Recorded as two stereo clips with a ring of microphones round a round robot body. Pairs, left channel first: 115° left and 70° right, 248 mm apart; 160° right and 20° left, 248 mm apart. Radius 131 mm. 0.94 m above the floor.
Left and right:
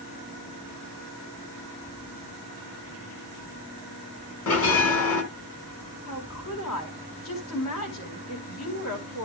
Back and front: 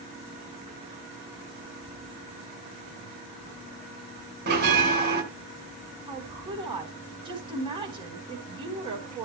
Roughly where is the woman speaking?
Left.